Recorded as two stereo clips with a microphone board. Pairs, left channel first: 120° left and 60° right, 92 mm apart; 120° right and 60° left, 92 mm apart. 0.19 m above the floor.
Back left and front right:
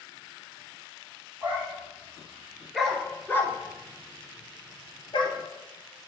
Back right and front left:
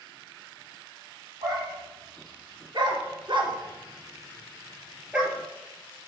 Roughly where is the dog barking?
Ahead.